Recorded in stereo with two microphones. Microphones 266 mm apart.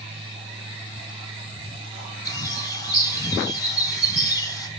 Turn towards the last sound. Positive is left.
turn(degrees=10)  # may be behind; listen again after turning